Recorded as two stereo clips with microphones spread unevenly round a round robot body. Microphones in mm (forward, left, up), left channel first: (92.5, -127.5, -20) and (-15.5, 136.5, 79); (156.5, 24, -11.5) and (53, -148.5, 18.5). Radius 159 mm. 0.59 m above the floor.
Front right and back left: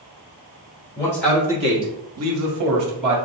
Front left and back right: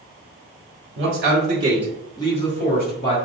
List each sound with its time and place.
1.0 s a man speaking: 115° right, 1.3 m; by 3.1 s 80° left, 1.9 m